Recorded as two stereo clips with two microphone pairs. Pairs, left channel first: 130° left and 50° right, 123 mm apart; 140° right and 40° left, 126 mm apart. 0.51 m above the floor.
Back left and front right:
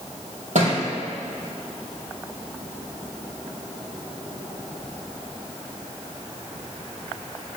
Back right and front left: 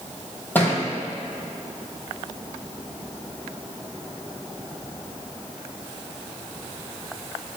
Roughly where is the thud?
Ahead right.